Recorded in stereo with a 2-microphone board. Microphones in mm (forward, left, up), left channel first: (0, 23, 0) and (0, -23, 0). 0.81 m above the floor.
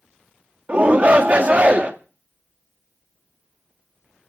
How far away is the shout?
About 1.0 m.